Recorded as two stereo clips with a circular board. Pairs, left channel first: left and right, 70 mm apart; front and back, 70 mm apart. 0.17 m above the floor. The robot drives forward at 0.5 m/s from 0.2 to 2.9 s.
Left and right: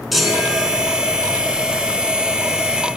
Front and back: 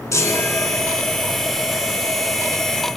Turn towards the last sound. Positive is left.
turn(degrees=-115)